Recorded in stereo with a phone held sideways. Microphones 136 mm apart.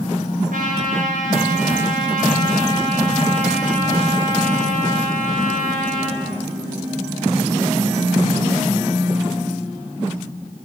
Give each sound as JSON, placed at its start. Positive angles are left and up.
{"t": 0.5, "sound": "a trumpet", "side_deg": -80, "distance_m": 6.0}